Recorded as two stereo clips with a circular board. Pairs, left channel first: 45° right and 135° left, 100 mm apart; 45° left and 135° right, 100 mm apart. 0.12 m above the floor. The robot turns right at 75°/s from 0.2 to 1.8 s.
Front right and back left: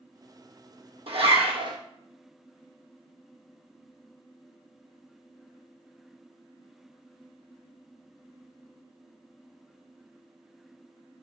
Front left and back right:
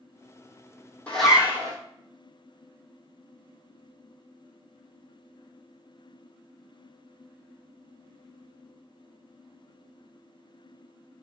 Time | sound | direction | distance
1.1 | a zipper | 125° left | 0.8 m